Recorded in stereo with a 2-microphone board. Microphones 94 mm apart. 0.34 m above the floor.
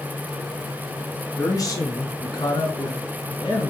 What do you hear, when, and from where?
1.4 s a man speaking: 40° left (ahead or behind), 3.5 m; by 3.7 s 55° left (ahead or behind), 5.5 m